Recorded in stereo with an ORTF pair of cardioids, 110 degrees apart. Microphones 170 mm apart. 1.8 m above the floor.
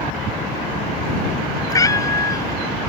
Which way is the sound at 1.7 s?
20° left.